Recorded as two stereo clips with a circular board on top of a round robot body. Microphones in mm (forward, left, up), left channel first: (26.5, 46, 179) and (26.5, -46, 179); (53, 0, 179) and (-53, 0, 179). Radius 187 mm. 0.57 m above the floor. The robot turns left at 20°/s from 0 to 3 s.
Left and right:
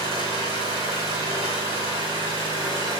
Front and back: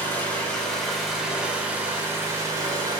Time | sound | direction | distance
0.0 | an engine running | 70° right | 3.5 m